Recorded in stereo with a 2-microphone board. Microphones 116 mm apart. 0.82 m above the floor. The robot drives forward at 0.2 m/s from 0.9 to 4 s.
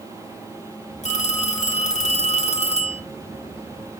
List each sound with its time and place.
1.0 s a phone ringing: 75° left (ahead or behind), 1.8 m; by 3.0 s 65° left (ahead or behind), 2.0 m